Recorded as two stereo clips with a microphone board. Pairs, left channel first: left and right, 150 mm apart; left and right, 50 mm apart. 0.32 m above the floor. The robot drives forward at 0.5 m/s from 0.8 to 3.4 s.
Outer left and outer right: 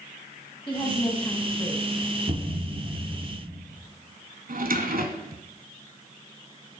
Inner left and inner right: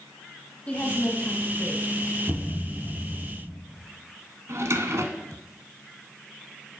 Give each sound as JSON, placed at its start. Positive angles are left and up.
{"t": 0.7, "sound": "a woman speaking", "side_deg": 30, "distance_m": 1.7}
{"t": 2.3, "sound": "a thud", "side_deg": -50, "distance_m": 4.0}
{"t": 4.5, "sound": "a drawer", "side_deg": -65, "distance_m": 1.0}